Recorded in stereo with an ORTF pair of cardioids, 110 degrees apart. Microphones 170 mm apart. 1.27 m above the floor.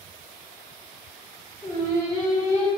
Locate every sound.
1.6 s singing: 20° left, 1.7 m